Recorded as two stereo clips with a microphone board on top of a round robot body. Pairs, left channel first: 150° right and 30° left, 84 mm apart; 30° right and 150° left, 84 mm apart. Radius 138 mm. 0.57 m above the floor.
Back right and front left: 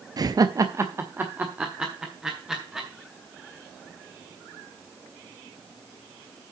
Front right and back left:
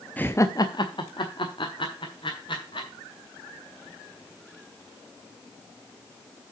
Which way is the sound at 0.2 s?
35° left.